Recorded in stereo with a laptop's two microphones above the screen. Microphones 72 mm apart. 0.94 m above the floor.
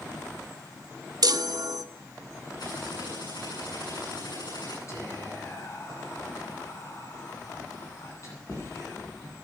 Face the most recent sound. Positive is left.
turn(degrees=45)  # may be behind; listen again after turning